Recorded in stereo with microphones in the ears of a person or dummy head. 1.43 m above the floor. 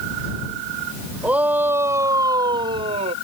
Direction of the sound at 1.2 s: 5° right (ahead or behind).